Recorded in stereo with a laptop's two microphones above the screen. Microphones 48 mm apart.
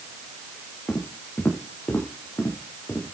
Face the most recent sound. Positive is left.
turn(degrees=60)  # may be behind; listen again after turning